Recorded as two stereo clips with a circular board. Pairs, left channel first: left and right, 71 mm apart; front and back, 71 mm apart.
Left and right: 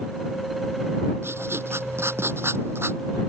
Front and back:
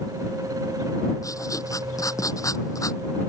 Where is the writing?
35° right.